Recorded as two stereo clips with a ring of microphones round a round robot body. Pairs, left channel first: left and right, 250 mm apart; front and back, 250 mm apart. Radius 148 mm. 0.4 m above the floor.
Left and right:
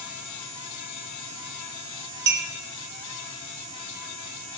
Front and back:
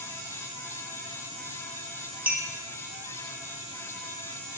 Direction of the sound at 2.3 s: 100° right.